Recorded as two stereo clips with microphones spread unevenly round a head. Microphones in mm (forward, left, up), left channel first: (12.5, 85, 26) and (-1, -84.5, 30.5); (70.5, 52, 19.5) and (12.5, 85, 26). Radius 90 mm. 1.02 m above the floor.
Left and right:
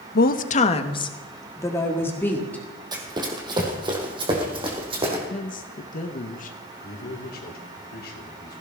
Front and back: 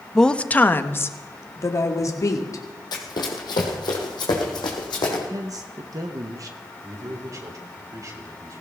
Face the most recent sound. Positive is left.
turn(degrees=120)